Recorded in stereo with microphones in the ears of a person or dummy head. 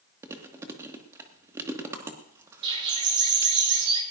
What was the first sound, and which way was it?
Chewing, 15° right (ahead or behind).